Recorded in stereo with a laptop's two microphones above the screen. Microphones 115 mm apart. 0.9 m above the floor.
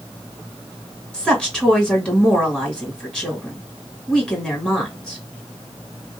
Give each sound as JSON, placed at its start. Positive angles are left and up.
{"t": 1.1, "sound": "a woman speaking", "side_deg": 5, "distance_m": 1.8}